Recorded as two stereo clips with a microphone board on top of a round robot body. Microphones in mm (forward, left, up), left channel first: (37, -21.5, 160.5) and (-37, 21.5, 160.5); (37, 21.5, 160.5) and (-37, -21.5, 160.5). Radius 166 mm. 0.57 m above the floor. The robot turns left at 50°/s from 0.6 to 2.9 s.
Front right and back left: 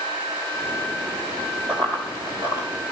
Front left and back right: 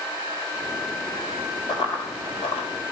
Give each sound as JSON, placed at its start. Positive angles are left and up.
{"t": 1.7, "sound": "running footsteps", "azimuth_deg": 55, "distance_m": 1.3}